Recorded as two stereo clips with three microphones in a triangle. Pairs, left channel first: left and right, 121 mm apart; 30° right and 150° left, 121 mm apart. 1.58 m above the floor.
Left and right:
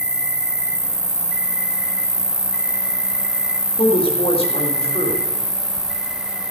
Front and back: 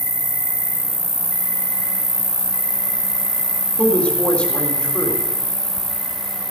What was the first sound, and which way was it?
An insect, 175° right.